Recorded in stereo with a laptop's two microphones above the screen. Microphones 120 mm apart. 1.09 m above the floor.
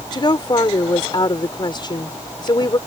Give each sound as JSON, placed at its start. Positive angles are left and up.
{"t": 0.1, "sound": "a woman speaking", "side_deg": 35}